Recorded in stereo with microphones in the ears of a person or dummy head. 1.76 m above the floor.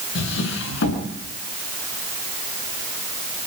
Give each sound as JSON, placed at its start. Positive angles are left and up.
{"t": 0.1, "sound": "a drawer", "side_deg": 75, "distance_m": 6.0}